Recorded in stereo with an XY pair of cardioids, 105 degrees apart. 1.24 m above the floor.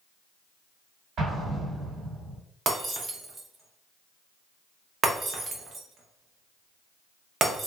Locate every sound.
1.2 s an explosion: 65° right, 1.5 m
2.7 s breaking glass: 50° right, 0.9 m